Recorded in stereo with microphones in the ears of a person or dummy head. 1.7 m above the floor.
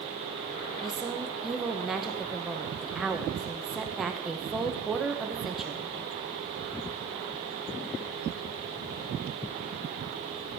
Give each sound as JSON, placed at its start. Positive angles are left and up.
{"t": 0.8, "sound": "a woman speaking", "side_deg": -5, "distance_m": 1.0}